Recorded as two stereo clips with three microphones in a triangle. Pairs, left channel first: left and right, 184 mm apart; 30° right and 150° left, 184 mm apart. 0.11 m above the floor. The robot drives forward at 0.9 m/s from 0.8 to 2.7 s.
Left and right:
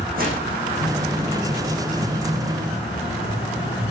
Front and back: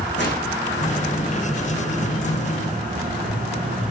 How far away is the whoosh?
About 6.5 m.